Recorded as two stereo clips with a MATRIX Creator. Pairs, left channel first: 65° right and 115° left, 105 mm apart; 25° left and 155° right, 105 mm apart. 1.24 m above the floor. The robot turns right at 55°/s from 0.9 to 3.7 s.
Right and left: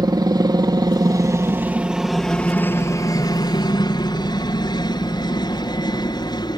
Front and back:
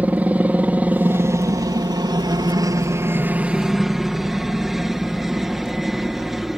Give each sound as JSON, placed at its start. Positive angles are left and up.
{"t": 0.0, "sound": "a helicopter", "azimuth_deg": 135}